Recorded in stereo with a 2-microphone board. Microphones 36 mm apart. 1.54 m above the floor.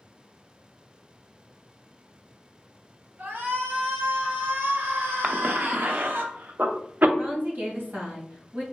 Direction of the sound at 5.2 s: 55° right (ahead or behind).